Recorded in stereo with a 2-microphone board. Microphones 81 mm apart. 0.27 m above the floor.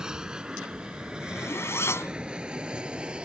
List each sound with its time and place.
0.0 s an aircraft: 10° right (ahead or behind)
1.2 s a zipper: 35° left (ahead or behind)